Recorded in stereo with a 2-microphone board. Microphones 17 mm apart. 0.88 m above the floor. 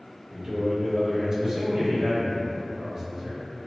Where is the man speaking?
30° right (ahead or behind), 0.7 m.